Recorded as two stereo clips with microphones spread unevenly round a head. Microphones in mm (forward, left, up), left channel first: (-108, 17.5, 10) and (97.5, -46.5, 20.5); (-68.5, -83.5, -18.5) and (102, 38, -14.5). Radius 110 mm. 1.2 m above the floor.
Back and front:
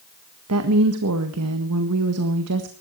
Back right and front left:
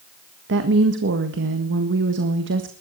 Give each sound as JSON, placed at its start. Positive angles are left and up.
{"t": 0.5, "sound": "a woman speaking", "azimuth_deg": 0, "distance_m": 1.7}